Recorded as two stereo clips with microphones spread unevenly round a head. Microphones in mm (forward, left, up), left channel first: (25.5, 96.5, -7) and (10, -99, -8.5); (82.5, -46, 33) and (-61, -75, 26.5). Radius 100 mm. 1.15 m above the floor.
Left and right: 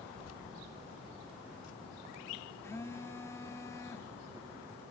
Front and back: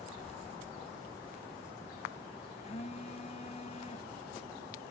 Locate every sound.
0.1 s keys jangling: 65° left, 1.0 m; by 2.5 s 95° left, 2.5 m
2.6 s a phone buzzing: 15° left, 0.7 m